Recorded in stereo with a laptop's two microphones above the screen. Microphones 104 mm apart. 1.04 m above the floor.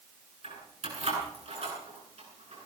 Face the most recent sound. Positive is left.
turn(degrees=-80)